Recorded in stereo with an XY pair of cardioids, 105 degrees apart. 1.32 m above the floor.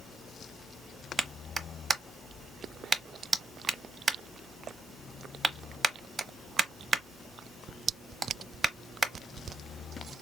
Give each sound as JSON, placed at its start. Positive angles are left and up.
{"t": 1.2, "sound": "a clap", "azimuth_deg": -35, "distance_m": 0.8}